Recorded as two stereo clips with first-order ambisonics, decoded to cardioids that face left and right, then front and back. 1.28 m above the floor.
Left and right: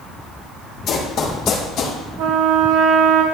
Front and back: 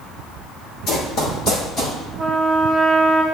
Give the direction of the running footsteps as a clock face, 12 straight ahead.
11 o'clock.